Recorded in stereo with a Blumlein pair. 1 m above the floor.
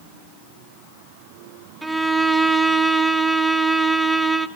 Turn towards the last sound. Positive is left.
turn(degrees=-5)